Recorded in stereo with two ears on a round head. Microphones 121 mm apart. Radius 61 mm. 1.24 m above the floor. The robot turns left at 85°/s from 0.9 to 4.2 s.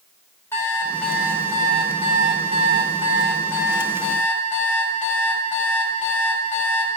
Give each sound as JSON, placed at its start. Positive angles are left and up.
{"t": 0.5, "sound": "an alarm clock", "azimuth_deg": 20, "distance_m": 1.5}